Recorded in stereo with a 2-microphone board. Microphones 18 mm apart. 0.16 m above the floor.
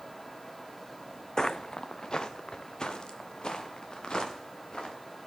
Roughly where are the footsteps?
Left.